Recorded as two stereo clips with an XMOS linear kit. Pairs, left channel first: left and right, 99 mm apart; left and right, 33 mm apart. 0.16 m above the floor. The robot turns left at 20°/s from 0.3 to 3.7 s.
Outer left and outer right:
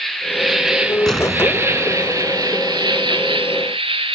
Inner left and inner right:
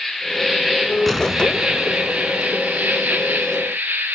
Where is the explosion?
5° left (ahead or behind), 0.9 m; by 2.5 s 15° right (ahead or behind), 0.9 m.